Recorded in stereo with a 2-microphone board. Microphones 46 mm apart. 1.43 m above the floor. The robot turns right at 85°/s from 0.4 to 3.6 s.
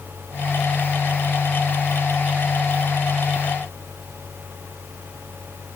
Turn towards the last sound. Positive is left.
No sound to turn to.